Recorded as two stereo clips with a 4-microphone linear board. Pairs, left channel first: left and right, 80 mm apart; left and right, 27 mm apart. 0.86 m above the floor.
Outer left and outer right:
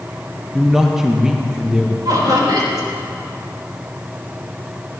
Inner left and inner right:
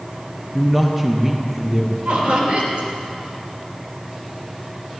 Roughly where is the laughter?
Right.